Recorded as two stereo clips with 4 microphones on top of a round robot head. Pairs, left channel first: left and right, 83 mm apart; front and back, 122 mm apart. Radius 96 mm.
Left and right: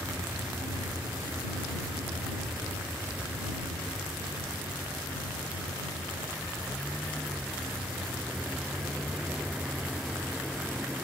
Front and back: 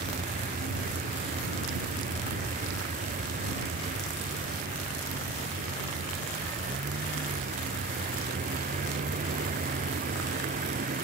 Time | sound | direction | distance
0.0 | a vehicle | 165° right | ?